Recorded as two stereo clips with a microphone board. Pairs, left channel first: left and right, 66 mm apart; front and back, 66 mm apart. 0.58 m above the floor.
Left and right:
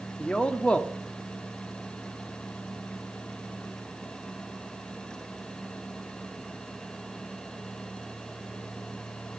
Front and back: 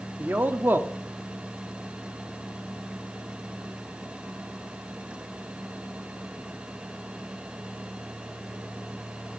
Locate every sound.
0.2 s a man speaking: 155° left, 0.9 m